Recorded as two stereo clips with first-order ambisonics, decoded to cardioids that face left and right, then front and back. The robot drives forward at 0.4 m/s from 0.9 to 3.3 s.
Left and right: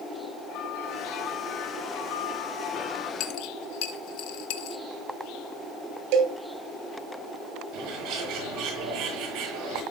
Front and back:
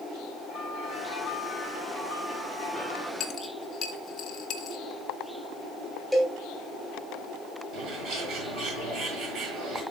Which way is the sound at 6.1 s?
90° right.